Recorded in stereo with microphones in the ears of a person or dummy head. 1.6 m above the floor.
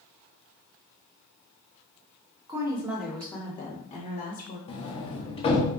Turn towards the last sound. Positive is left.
turn(degrees=35)  # may be behind; listen again after turning